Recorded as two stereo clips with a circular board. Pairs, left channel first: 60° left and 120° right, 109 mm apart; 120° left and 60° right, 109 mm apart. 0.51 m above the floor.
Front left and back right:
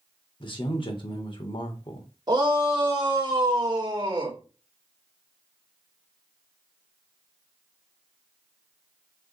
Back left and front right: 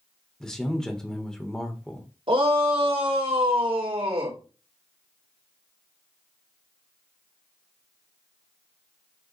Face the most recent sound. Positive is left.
turn(degrees=-80)